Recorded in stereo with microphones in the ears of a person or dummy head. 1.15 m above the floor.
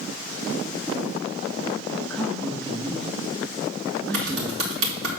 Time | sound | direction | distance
2.1 | a man speaking | 15° left (ahead or behind) | 1.2 m
4.1 | typing on a keyboard | 75° right (ahead or behind) | 2.5 m